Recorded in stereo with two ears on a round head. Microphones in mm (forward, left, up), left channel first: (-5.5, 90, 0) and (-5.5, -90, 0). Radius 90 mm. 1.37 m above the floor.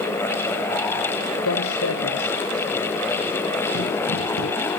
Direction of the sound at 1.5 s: 80° left.